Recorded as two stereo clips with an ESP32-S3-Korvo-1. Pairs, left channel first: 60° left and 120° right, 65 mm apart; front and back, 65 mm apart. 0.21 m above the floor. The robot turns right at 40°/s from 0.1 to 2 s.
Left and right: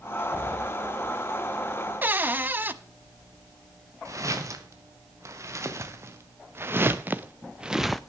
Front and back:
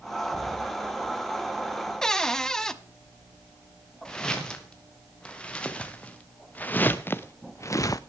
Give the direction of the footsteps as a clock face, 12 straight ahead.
3 o'clock.